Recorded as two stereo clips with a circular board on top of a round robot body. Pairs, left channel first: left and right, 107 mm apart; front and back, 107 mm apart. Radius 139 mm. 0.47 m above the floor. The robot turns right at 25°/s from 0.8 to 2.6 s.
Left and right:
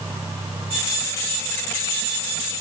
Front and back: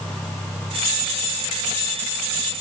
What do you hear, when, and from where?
Only background noise.